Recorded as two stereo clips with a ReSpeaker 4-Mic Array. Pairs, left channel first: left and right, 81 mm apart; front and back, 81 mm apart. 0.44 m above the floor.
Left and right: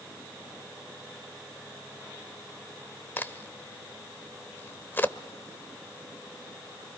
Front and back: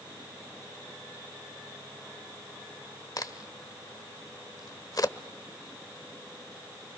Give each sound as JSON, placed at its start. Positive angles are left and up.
{"t": 3.2, "sound": "a crack", "azimuth_deg": 30, "distance_m": 0.9}